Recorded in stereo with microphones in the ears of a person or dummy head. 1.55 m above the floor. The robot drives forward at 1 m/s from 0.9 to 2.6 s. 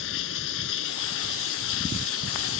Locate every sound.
0.0 s running water: 70° left (ahead or behind); by 2.6 s 75° left (ahead or behind)